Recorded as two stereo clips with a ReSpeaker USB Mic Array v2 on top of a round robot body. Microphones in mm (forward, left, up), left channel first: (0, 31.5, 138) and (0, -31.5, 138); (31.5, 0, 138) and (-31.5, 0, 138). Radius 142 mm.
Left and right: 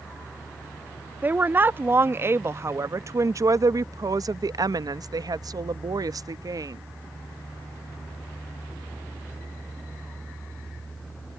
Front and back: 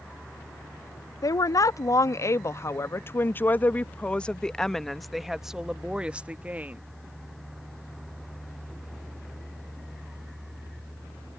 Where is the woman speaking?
30° right; by 6.8 s 115° right.